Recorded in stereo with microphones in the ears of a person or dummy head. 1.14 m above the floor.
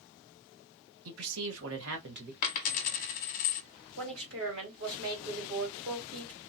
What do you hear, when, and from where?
1.1 s a man speaking: 85° right, 1.0 m; by 2.3 s 45° right (ahead or behind), 0.9 m
2.4 s a dropped coin: 40° left (ahead or behind), 0.8 m
4.0 s a woman speaking: 65° right (ahead or behind), 2 m